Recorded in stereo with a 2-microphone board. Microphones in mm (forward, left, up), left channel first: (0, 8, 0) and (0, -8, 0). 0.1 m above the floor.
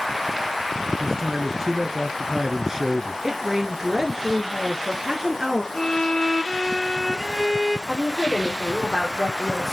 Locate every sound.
1.0 s a man speaking: 25° right (ahead or behind), 1.2 m
3.2 s a woman speaking: 25° right (ahead or behind), 2 m
5.7 s a violin: 55° left (ahead or behind), 0.6 m
7.9 s a woman speaking: 15° left (ahead or behind), 3.5 m